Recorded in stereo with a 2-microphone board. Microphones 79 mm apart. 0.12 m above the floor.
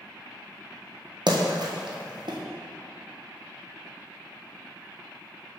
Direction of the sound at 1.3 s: 70° right (ahead or behind).